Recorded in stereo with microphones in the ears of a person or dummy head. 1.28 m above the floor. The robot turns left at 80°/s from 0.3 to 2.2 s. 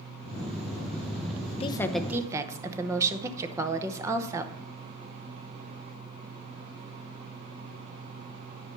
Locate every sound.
1.6 s a woman speaking: 25° left, 0.8 m; by 4.5 s 20° right, 0.8 m